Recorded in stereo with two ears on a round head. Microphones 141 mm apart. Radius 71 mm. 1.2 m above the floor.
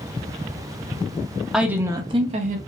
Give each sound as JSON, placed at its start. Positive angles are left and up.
{"t": 1.5, "sound": "a woman speaking", "side_deg": 0, "distance_m": 0.6}